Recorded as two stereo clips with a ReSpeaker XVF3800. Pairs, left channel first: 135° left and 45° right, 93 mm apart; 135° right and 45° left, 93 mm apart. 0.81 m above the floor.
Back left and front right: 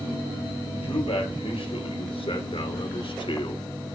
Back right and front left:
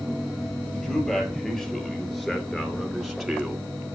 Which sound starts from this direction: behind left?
A man speaking, at 0.7 s.